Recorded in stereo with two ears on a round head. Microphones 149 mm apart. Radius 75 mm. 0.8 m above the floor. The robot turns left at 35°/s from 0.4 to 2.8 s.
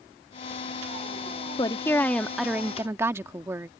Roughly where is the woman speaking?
Ahead left.